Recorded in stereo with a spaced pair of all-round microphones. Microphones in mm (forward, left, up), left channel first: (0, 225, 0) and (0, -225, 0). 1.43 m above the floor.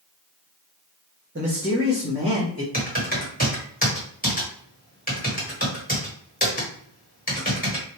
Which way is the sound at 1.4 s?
30° right (ahead or behind).